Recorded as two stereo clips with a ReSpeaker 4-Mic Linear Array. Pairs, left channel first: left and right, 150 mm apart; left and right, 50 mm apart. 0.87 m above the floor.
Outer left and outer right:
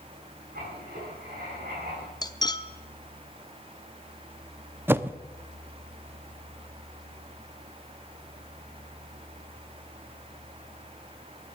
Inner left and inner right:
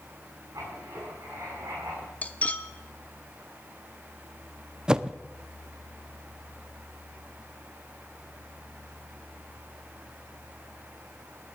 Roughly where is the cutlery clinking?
Left.